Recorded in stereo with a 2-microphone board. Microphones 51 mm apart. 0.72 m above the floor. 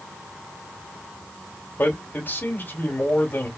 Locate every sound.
1.8 s a man speaking: 45° left (ahead or behind), 2 m